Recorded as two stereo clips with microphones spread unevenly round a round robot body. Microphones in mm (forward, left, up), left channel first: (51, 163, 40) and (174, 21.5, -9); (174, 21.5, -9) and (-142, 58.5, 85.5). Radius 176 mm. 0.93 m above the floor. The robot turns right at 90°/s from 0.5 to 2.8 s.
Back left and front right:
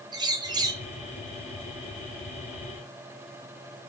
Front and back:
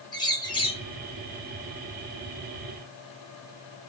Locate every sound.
0.1 s a bird: 45° right, 0.9 m; by 0.8 s 15° right, 0.9 m